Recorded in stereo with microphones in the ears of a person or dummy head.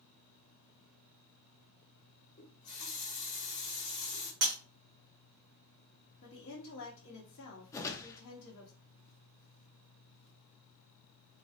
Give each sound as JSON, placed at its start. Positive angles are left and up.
{"t": 2.4, "sound": "a running tap", "side_deg": 50, "distance_m": 1.4}
{"t": 4.4, "sound": "breaking glass", "side_deg": -45, "distance_m": 1.1}
{"t": 6.2, "sound": "a woman speaking", "side_deg": 60, "distance_m": 1.3}
{"t": 7.7, "sound": "a whoosh", "side_deg": 10, "distance_m": 0.5}